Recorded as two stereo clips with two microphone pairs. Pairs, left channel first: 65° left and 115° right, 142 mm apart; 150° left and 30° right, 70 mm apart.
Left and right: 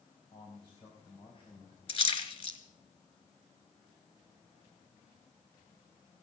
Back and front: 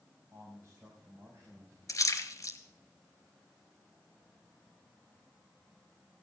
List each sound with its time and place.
0.3 s a man speaking: 20° left, 4 m
1.9 s a splash: 110° left, 2.5 m